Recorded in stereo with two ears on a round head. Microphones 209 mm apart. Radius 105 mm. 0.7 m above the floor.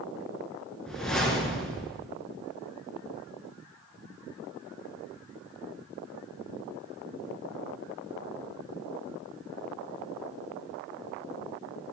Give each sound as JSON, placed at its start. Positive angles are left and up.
{"t": 0.9, "sound": "a whoosh", "side_deg": 5, "distance_m": 2.5}